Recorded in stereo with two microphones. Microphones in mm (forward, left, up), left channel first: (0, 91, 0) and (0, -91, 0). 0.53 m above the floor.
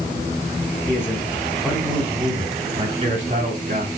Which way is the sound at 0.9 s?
15° left (ahead or behind).